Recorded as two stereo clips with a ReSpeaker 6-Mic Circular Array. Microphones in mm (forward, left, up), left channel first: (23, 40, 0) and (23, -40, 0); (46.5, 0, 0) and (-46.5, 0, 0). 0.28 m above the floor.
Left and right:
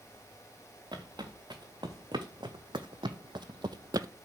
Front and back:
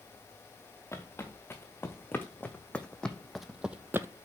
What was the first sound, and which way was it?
Footsteps, 60° right.